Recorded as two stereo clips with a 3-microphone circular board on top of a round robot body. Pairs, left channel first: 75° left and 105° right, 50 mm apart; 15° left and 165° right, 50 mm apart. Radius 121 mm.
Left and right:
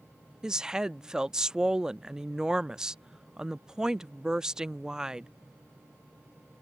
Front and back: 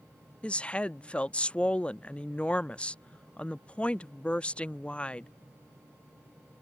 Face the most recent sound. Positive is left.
turn(degrees=-35)